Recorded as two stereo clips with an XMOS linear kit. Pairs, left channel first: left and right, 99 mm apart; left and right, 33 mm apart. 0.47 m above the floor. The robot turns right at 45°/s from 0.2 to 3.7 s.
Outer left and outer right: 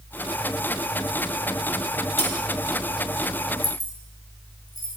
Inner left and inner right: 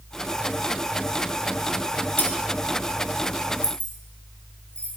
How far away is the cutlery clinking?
About 1.9 m.